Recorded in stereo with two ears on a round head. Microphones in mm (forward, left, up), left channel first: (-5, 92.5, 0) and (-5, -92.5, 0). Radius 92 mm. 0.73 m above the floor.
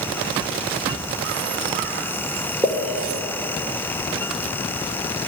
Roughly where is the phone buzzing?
I don't hear a phone buzzing.